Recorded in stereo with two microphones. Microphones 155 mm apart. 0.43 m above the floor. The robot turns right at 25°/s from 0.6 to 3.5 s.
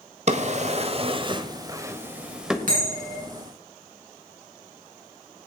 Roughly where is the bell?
Right.